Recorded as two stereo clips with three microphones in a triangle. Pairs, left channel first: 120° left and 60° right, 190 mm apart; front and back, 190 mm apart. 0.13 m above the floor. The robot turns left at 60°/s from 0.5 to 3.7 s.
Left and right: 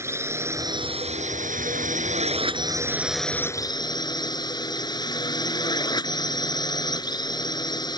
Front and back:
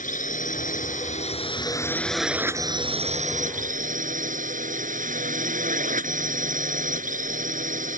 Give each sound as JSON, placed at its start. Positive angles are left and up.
{"t": 0.0, "sound": "a drone", "azimuth_deg": 10}